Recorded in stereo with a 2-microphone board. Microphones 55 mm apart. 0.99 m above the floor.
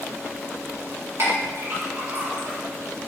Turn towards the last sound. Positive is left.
turn(degrees=-55)  # may be behind; listen again after turning